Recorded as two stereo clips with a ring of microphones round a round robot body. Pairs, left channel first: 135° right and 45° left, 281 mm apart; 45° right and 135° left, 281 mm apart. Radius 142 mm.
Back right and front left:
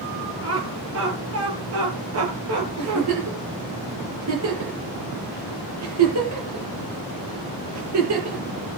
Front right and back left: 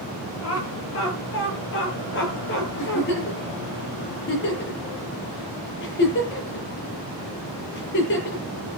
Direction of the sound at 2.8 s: 10° left.